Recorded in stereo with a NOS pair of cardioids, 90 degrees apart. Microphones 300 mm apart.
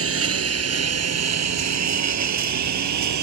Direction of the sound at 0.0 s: 50° right.